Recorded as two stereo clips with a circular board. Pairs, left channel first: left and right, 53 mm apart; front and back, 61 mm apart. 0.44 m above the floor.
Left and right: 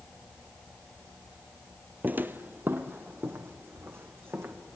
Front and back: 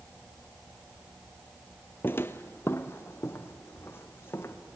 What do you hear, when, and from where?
2.0 s footsteps: 45° right, 0.6 m; by 4.5 s 50° right, 2.0 m